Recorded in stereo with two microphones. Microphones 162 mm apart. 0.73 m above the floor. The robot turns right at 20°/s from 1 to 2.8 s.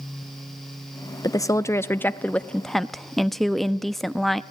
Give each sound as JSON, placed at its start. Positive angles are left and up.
{"t": 1.2, "sound": "a woman speaking", "azimuth_deg": 145, "distance_m": 0.6}